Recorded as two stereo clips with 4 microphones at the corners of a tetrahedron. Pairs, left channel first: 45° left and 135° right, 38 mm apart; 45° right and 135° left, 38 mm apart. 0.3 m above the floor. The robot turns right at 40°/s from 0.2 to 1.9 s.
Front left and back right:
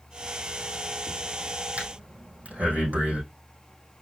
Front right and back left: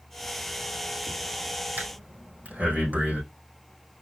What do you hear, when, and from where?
1.8 s breathing: 175° left, 4.5 m; by 3.2 s straight behind, 4.5 m